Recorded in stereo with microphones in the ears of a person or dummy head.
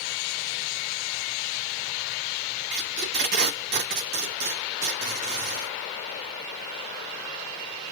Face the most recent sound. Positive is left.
turn(degrees=-45)  # may be behind; listen again after turning